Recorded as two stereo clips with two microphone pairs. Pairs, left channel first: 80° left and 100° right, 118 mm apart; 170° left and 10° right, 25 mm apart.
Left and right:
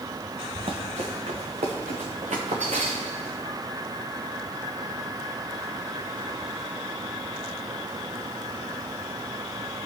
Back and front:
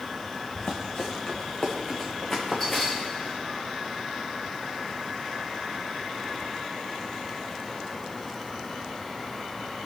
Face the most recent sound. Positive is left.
turn(degrees=-95)